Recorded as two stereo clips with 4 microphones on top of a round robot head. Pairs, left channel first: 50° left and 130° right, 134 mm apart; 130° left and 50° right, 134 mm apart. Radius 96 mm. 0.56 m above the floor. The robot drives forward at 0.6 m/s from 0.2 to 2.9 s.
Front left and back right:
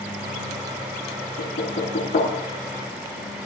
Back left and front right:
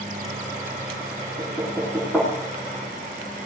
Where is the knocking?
45° left, 7 m.